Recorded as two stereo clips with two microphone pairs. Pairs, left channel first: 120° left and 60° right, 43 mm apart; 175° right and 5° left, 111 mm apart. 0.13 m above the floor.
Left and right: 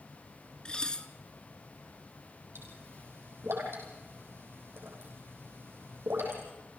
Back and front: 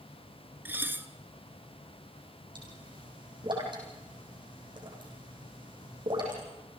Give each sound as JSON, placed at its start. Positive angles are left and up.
{"t": 0.7, "sound": "dishes clattering", "azimuth_deg": 65, "distance_m": 1.0}
{"t": 2.5, "sound": "a pop", "azimuth_deg": -35, "distance_m": 6.0}